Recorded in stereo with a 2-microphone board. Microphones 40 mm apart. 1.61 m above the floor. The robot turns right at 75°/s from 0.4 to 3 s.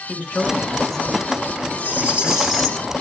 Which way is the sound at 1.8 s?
55° right.